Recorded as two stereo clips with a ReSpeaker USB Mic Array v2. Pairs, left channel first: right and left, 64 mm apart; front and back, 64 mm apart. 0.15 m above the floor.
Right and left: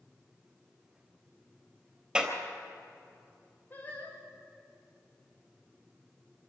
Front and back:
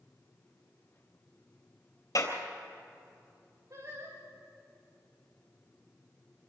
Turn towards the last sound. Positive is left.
turn(degrees=-145)